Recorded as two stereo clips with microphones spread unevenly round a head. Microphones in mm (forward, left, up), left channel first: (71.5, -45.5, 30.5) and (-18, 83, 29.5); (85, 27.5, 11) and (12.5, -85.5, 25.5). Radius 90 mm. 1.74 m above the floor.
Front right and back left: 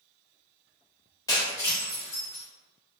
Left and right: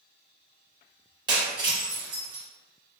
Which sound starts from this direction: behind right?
Breaking glass, at 1.3 s.